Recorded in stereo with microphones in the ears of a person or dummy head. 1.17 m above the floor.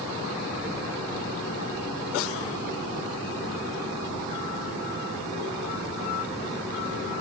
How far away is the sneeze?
No sneeze in this recording.